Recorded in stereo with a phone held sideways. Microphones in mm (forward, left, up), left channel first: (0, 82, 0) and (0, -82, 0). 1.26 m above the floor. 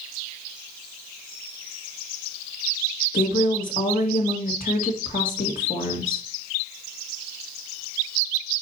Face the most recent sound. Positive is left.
turn(degrees=55)  # may be behind; listen again after turning